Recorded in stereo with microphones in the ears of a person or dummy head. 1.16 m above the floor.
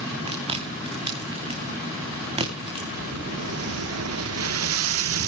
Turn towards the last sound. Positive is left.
turn(degrees=-75)  # may be behind; listen again after turning